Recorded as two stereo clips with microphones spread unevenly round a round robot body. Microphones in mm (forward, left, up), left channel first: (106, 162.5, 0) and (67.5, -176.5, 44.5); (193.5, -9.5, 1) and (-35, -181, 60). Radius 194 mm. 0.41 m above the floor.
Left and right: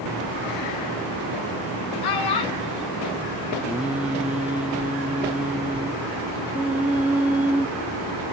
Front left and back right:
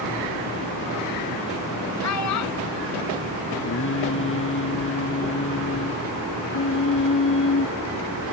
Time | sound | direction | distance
2.0 | a child speaking | 75° left | ?
3.6 | singing | 10° right | ?